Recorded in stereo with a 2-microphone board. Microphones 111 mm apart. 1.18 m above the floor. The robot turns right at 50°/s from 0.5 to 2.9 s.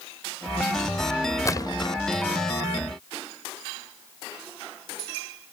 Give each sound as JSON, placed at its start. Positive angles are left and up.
{"t": 1.4, "sound": "a splash", "side_deg": 30}